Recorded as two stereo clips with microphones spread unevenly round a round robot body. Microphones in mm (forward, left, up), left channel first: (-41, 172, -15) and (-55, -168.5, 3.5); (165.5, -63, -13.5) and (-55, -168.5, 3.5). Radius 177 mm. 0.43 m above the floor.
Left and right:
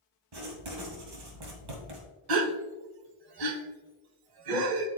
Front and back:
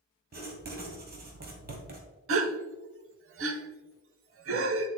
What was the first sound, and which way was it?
Writing, 105° right.